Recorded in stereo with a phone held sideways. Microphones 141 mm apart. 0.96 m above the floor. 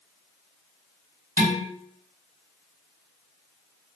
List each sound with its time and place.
1.4 s dishes clattering: 85° right, 1.6 m